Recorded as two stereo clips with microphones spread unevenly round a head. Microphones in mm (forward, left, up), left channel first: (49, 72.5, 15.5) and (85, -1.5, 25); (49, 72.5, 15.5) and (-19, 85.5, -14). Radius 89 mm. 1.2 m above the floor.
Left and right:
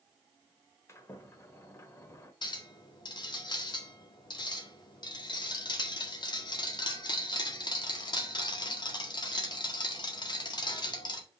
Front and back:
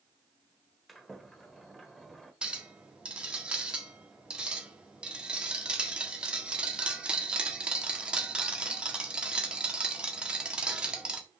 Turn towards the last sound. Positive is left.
turn(degrees=90)